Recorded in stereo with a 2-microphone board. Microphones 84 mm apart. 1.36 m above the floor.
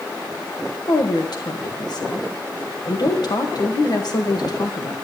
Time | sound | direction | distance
0.9 | a woman speaking | 55° left (ahead or behind) | 1.8 m